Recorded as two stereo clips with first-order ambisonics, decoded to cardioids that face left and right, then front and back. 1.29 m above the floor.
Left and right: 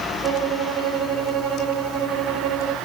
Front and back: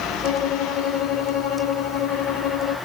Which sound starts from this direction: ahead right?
A violin, at 0.2 s.